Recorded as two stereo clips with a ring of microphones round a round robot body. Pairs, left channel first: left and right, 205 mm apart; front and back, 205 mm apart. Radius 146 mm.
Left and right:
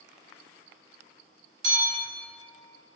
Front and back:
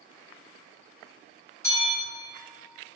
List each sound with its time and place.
1.6 s a bell: 70° right, 0.9 m